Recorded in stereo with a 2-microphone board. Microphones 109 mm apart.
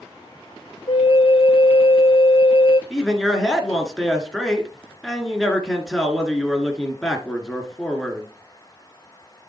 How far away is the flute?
About 0.6 m.